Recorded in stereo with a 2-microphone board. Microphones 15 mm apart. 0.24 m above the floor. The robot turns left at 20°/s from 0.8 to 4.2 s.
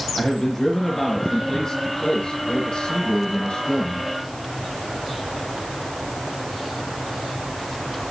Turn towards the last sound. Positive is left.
turn(degrees=90)